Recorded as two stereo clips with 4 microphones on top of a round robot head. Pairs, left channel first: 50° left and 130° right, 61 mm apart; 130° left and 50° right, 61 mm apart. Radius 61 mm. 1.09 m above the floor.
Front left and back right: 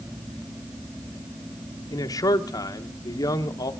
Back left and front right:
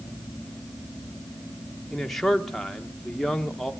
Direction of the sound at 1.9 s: 45° left.